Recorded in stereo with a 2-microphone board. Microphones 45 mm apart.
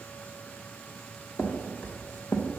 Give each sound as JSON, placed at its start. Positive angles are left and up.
{"t": 1.4, "sound": "footsteps", "side_deg": 35, "distance_m": 1.6}